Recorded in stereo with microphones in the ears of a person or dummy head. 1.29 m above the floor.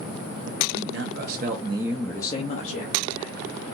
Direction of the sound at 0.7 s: 70° right (ahead or behind).